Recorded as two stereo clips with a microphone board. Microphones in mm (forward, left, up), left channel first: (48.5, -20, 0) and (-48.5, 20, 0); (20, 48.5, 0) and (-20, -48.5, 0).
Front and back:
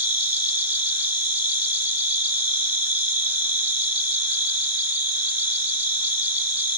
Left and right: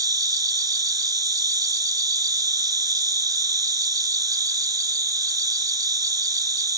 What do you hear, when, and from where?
0.0 s an insect: 135° right, 1.8 m